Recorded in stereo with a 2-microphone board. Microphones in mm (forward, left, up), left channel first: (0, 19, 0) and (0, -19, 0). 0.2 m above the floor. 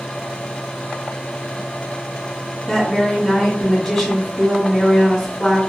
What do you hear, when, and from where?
2.7 s a woman speaking: 5° left (ahead or behind), 1.3 m